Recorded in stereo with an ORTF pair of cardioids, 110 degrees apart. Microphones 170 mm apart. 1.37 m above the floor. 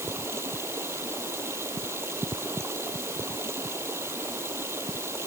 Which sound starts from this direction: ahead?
Running water, at 0.0 s.